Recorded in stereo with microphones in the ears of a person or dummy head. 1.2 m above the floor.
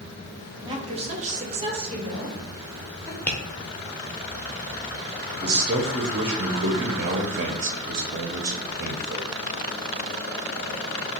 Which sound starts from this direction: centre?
Tapping, at 3.3 s.